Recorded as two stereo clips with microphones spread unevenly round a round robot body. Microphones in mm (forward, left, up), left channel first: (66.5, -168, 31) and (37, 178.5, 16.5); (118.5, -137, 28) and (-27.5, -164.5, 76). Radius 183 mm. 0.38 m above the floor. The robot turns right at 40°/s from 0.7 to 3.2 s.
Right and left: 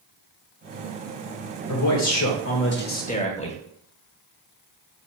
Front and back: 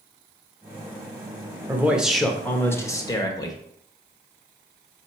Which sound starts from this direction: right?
A man speaking, at 1.7 s.